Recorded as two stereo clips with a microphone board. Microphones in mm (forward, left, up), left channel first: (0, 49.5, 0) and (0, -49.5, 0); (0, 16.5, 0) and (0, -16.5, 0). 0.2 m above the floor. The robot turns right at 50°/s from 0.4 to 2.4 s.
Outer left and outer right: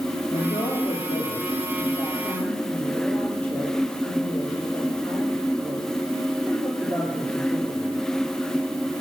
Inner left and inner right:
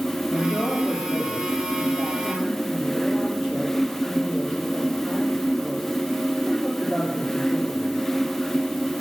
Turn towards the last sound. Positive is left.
turn(degrees=165)